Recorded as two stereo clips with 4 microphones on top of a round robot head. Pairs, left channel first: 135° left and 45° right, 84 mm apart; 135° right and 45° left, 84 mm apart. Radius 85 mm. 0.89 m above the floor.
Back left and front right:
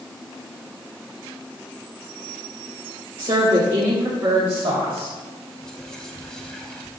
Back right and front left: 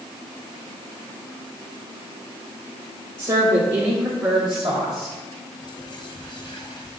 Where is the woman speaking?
15° right, 2.5 m; by 5.2 s 70° right, 3.5 m.